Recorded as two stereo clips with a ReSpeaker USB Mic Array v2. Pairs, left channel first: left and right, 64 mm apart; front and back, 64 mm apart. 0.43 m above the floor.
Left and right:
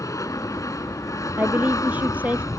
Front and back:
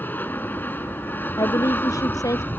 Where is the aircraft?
60° left.